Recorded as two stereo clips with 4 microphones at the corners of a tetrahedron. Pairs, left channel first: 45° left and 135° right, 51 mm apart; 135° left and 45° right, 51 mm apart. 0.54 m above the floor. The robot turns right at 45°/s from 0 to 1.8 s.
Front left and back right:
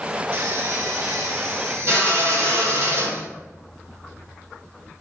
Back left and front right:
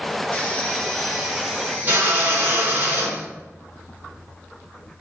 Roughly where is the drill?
Behind.